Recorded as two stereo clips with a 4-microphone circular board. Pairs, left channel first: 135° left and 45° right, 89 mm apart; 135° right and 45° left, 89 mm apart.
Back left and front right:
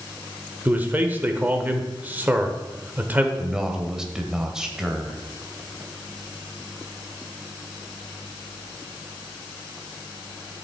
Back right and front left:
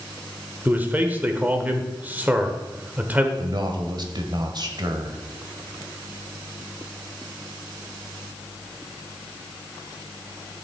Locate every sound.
0.7 s a man speaking: straight ahead, 1.1 m
3.4 s a man speaking: 40° left, 1.4 m